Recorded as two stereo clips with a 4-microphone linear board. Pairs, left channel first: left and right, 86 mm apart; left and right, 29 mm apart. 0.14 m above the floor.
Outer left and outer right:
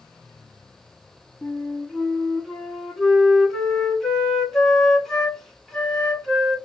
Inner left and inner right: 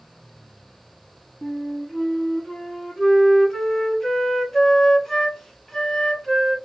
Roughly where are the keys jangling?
I don't hear keys jangling.